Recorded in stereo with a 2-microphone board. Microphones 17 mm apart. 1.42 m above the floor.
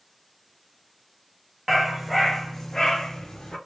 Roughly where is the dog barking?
Centre.